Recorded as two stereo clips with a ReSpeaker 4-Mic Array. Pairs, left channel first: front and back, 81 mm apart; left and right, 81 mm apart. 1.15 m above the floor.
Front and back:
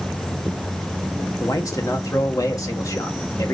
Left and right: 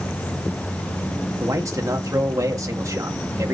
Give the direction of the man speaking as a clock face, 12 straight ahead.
1 o'clock.